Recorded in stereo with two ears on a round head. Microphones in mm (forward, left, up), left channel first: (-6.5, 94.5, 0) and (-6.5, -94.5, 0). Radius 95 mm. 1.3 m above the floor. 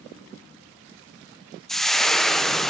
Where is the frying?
Centre (ahead or behind), 0.5 m.